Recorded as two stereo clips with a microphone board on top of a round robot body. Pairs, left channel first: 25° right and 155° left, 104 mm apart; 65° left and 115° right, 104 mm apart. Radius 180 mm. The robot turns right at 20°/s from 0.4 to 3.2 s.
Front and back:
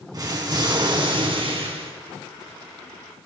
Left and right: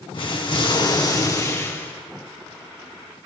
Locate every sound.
0.1 s an explosion: 105° left, 1.8 m; by 1.9 s 135° left, 1.8 m